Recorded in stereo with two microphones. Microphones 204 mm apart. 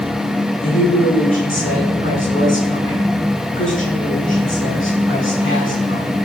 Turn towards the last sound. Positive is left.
turn(degrees=80)